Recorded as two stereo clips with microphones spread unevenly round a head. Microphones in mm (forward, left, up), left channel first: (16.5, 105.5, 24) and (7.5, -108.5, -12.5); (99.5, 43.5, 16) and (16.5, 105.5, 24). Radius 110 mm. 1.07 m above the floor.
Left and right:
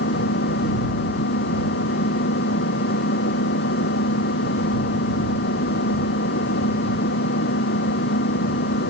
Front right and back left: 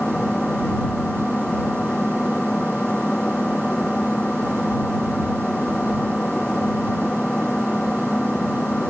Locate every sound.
0.0 s an engine running: 45° left